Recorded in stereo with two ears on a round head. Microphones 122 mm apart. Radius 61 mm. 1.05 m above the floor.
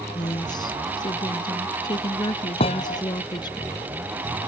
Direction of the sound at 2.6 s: 45° left (ahead or behind).